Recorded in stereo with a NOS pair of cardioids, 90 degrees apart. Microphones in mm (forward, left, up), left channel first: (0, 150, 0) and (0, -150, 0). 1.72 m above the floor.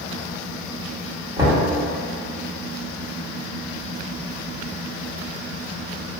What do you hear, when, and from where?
1.4 s knocking: 15° right, 1.9 m